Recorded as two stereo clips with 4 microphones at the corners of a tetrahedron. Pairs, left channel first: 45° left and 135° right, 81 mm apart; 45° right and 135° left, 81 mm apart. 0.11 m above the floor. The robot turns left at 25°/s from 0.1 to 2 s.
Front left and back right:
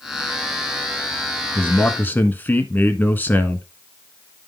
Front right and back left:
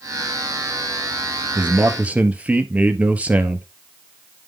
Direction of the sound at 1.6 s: 95° left.